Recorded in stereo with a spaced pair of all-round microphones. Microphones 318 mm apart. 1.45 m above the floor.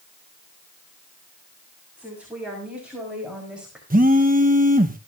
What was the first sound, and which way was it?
A woman speaking, 5° right (ahead or behind).